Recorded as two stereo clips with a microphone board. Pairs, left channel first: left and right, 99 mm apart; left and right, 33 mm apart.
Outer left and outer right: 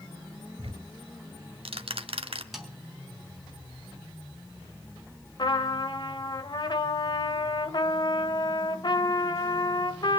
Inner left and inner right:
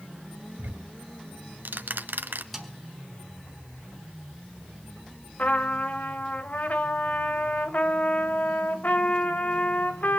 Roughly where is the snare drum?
Centre.